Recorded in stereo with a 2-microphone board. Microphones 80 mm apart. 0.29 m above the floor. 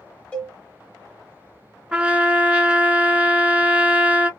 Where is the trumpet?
15° right (ahead or behind), 0.6 m.